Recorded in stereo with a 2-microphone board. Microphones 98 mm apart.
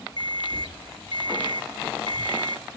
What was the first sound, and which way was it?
An alarm clock, 55° left (ahead or behind).